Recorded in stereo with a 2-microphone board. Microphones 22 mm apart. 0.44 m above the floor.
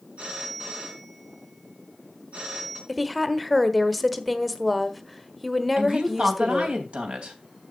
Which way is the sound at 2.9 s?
Centre (ahead or behind).